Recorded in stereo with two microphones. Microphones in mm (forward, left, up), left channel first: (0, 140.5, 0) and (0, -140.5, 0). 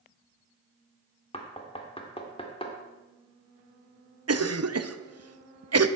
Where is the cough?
60° right (ahead or behind), 0.7 m.